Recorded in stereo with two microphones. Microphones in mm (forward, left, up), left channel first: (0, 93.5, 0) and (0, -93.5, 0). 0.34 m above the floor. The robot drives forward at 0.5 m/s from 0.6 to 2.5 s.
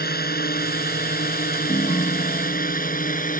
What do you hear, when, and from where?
0.0 s a drone: 60° left (ahead or behind); by 3.4 s 50° left (ahead or behind)
1.7 s a ringtone: 25° left (ahead or behind)